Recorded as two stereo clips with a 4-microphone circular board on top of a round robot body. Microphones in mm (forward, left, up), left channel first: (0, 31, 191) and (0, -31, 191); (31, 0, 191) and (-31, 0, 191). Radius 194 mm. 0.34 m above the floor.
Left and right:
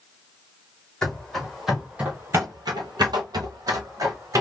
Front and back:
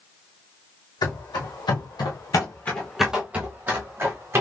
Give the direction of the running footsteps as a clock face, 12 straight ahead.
12 o'clock.